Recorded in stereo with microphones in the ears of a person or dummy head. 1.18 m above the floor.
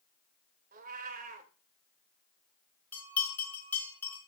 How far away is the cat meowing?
About 1.5 m.